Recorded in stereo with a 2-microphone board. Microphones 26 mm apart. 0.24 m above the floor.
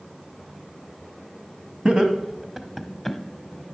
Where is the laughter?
40° right (ahead or behind), 1.2 m; by 3.2 s 10° left (ahead or behind), 1.1 m.